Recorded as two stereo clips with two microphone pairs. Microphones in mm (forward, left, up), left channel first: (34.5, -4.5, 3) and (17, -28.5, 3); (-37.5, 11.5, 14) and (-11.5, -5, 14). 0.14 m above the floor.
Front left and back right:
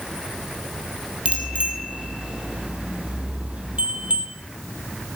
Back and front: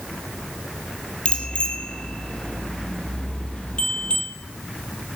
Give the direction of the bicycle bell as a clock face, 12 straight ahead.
5 o'clock.